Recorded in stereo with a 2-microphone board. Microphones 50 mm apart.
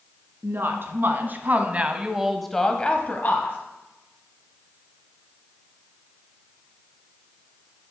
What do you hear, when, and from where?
0.4 s a woman speaking: 55° right (ahead or behind), 2 m; by 3.6 s 50° left (ahead or behind), 1.4 m